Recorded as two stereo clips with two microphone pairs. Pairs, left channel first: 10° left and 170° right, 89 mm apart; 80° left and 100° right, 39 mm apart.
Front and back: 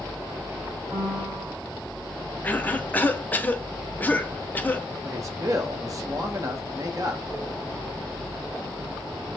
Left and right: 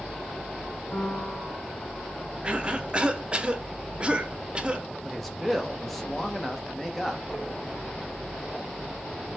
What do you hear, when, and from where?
0.9 s a piano: 135° left, 1.5 m
2.4 s a cough: 45° right, 0.6 m
5.0 s a man speaking: 165° left, 0.9 m